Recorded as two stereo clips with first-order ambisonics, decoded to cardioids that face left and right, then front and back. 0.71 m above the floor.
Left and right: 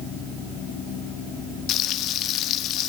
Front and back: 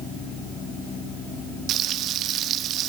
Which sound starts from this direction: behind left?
Frying, at 1.7 s.